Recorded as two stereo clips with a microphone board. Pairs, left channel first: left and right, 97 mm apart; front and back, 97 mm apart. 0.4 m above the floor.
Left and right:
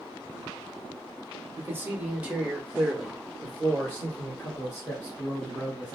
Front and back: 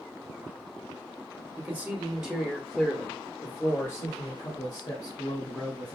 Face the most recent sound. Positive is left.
turn(degrees=35)